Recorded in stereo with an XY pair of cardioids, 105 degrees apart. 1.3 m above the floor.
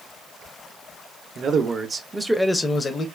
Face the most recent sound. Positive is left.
turn(degrees=45)